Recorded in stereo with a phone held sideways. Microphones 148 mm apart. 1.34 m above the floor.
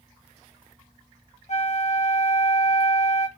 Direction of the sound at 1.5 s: 50° left (ahead or behind).